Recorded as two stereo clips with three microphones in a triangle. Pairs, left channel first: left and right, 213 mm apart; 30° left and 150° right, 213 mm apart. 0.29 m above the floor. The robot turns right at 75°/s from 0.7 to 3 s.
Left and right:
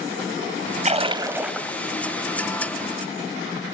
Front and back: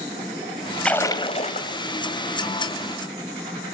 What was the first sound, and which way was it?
A splash, 55° right.